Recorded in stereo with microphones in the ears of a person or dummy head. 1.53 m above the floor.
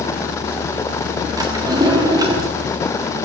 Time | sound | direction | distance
1.4 | a drawer | 15° right (ahead or behind) | 1.5 m